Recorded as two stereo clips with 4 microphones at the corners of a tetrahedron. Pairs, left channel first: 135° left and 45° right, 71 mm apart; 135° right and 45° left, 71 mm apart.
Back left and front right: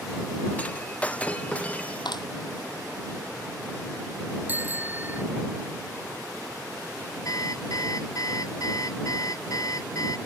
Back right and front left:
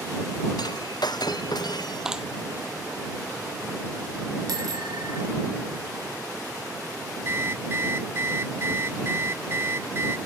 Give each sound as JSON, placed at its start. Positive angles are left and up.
{"t": 0.6, "sound": "breaking glass", "azimuth_deg": -155}
{"t": 2.0, "sound": "a clap", "azimuth_deg": 125}
{"t": 4.5, "sound": "a bicycle bell", "azimuth_deg": 20}
{"t": 7.2, "sound": "an alarm clock", "azimuth_deg": 100}